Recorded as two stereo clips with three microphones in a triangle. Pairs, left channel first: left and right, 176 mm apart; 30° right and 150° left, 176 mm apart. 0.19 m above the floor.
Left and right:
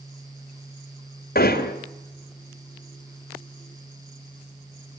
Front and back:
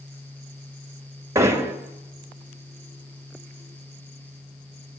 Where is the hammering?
80° left, 2.5 m.